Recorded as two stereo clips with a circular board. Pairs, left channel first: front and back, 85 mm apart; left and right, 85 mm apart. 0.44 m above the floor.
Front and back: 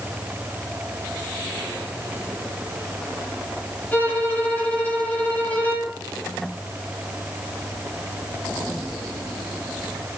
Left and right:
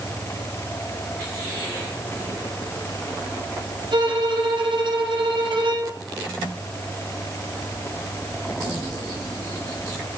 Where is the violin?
70° right, 10 m.